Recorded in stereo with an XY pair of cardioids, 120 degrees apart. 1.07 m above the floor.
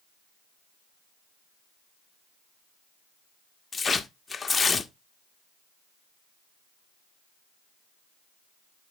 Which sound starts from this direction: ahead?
Tearing paper, at 3.7 s.